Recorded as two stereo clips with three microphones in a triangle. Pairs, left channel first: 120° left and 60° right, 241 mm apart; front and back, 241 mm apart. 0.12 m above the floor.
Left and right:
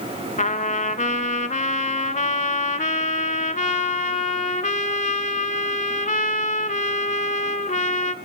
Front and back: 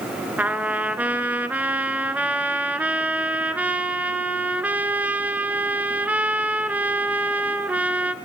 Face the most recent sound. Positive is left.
turn(degrees=105)